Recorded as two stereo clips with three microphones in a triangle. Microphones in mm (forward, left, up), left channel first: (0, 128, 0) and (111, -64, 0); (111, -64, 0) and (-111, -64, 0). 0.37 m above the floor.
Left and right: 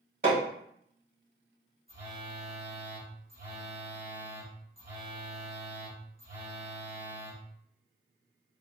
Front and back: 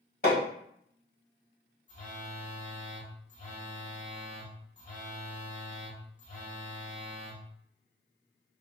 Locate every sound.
0.2 s hammering: 35° right, 1.6 m
1.9 s a phone buzzing: 40° right, 1.2 m